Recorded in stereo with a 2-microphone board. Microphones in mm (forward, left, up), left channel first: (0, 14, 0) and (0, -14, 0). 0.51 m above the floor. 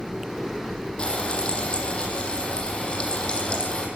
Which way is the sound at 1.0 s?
35° left (ahead or behind).